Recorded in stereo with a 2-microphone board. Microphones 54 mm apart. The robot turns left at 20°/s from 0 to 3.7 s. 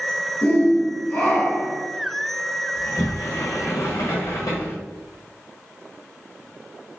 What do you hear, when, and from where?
0.4 s a shout: 15° left (ahead or behind), 1.4 m; by 1.8 s 30° left (ahead or behind), 1.4 m
2.8 s a sliding door: 50° left (ahead or behind), 1.4 m; by 4.8 s 70° left (ahead or behind), 1.4 m